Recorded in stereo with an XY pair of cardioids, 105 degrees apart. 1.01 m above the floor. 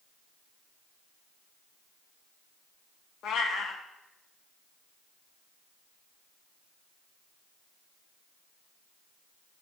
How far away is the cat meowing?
About 0.8 m.